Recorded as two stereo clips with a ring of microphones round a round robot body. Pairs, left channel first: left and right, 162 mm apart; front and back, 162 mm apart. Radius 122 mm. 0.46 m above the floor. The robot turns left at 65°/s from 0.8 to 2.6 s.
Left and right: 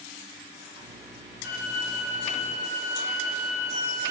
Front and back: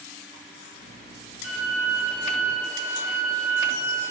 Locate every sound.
1.4 s a violin: straight behind, 1.0 m; by 4.1 s 105° left, 1.0 m